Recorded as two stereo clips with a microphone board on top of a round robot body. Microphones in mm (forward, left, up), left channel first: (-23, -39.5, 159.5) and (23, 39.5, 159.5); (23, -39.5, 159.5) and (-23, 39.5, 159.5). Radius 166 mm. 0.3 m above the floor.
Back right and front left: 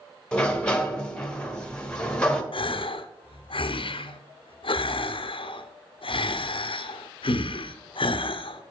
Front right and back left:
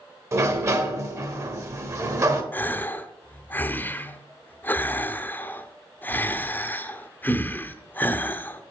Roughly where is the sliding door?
Behind.